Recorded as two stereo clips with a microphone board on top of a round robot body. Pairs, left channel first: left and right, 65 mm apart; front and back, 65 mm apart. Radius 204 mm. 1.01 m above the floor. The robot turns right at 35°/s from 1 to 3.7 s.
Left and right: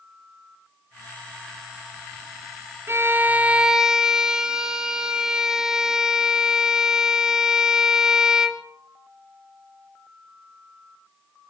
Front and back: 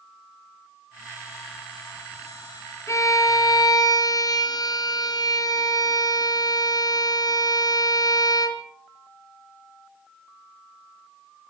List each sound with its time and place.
2.9 s a violin: 40° right, 1.9 m; by 8.6 s 10° right, 1.9 m